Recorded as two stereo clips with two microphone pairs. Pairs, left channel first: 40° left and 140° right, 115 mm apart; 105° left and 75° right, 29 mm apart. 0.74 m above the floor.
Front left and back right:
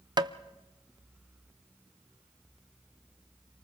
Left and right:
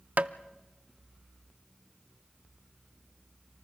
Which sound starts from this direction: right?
Tapping, at 0.2 s.